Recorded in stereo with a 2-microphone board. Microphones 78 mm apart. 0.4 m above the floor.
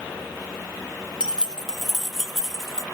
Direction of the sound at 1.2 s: 10° right (ahead or behind).